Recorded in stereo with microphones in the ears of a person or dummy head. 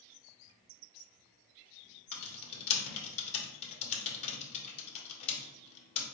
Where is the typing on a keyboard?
35° left (ahead or behind), 0.9 m.